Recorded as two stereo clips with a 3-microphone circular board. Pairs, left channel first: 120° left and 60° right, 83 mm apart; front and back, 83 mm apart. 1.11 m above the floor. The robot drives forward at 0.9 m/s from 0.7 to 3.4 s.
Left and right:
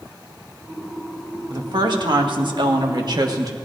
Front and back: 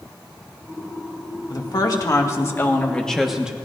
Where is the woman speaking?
30° right, 1.9 m; by 3.5 s 100° right, 1.1 m.